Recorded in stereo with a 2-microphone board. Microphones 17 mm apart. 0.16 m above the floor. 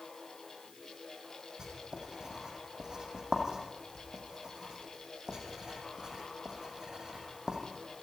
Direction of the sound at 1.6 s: 35° right (ahead or behind).